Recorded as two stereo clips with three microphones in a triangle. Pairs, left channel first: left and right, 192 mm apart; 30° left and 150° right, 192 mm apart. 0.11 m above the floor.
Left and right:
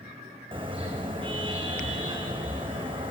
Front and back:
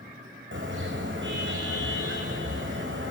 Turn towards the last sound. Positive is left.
turn(degrees=-155)